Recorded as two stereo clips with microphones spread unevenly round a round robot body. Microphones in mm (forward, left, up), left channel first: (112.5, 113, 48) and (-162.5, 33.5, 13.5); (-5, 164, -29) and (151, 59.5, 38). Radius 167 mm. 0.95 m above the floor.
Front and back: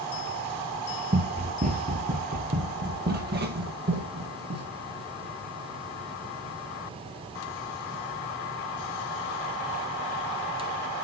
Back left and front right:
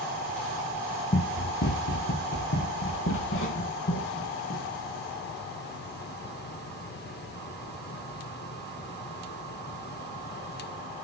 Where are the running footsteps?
135° left, 1.0 m; by 4.7 s 140° left, 2.5 m.